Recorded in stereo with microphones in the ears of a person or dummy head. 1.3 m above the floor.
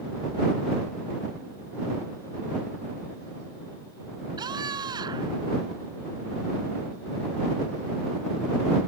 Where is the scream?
20° right (ahead or behind).